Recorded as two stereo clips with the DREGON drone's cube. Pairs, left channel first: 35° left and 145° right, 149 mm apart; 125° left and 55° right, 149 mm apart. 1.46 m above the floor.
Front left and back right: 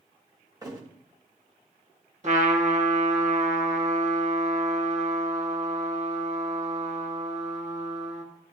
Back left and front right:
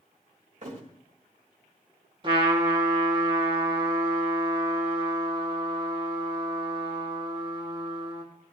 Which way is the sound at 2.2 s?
110° right.